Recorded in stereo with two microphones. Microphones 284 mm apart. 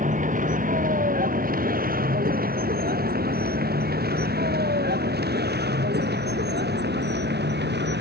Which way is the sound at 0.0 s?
25° right (ahead or behind).